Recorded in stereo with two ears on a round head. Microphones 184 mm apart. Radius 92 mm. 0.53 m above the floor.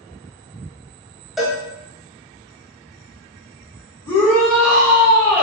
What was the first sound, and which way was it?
A cowbell, centre (ahead or behind).